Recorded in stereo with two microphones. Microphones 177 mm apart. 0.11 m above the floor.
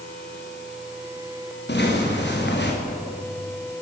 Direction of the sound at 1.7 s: 80° left.